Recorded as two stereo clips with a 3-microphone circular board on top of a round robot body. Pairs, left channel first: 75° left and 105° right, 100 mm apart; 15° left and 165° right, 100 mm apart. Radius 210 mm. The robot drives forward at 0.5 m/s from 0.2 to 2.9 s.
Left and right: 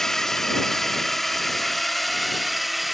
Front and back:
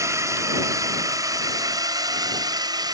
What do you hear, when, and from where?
0.0 s a drone: 160° left; by 2.9 s 165° left